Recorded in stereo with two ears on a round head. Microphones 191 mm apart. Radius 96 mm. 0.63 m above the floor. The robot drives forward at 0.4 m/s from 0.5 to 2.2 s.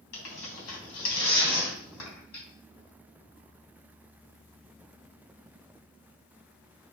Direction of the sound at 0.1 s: 85° left.